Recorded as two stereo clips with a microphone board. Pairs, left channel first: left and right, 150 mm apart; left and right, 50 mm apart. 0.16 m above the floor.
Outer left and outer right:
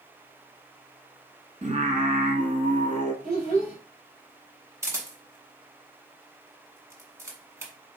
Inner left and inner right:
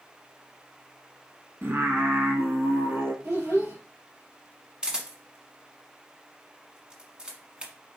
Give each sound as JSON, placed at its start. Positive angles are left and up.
{"t": 1.6, "sound": "singing", "side_deg": -50, "distance_m": 0.9}
{"t": 3.2, "sound": "a child speaking", "side_deg": -70, "distance_m": 3.0}
{"t": 4.8, "sound": "a camera shutter", "side_deg": -20, "distance_m": 1.1}